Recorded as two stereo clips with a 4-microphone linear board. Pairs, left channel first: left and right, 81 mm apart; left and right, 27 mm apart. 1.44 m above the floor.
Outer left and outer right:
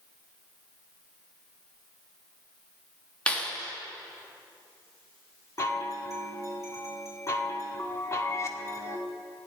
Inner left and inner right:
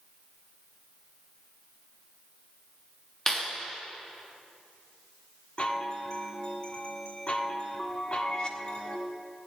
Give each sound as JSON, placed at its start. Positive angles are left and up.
{"t": 3.3, "sound": "a clap", "side_deg": 15, "distance_m": 3.0}
{"t": 5.6, "sound": "a chime", "side_deg": 40, "distance_m": 1.5}